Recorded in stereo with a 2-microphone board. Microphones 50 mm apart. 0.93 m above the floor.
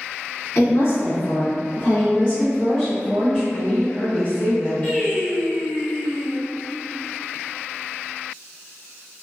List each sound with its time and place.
0.6 s a woman speaking: 50° left (ahead or behind), 0.8 m; by 3.4 s centre (ahead or behind), 1.2 m
3.5 s a woman speaking: 30° left (ahead or behind), 0.7 m
4.8 s singing: 30° left (ahead or behind), 1.5 m